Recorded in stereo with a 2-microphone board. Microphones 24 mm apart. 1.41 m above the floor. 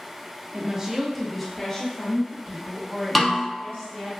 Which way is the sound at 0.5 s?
35° right (ahead or behind).